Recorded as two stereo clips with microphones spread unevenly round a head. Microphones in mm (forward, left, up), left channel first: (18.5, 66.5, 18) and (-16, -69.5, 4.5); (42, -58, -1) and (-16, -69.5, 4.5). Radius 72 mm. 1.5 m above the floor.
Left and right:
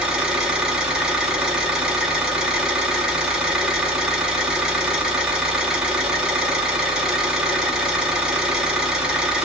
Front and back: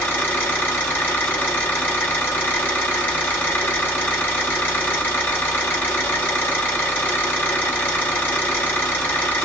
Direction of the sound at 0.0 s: 15° right.